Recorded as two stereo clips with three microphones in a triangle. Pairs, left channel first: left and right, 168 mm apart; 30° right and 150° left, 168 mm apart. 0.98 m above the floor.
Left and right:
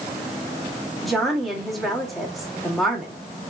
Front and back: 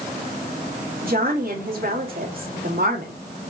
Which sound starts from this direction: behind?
A woman speaking, at 1.0 s.